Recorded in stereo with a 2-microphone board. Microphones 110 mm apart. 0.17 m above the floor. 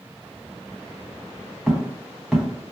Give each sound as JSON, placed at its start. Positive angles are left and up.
{"t": 1.7, "sound": "footsteps", "side_deg": -5, "distance_m": 1.2}